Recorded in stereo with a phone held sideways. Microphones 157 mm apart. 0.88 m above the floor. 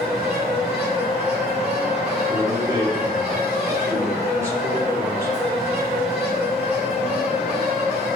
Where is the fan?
10° right (ahead or behind), 4.5 m.